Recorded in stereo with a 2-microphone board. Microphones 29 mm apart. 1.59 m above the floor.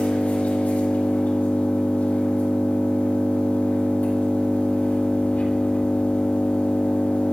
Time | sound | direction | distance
0.0 | an engine running | 80° left | 5.5 m